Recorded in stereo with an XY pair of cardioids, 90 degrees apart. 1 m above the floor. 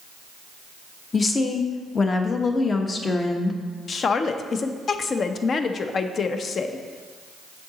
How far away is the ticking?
No ticking in this recording.